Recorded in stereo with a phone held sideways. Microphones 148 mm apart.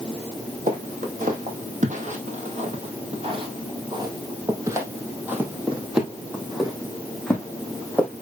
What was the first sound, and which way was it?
Footsteps, 70° right (ahead or behind).